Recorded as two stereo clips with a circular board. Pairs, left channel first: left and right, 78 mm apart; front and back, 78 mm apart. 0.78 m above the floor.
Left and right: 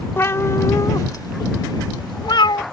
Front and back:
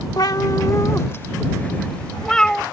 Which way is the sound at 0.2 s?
30° left.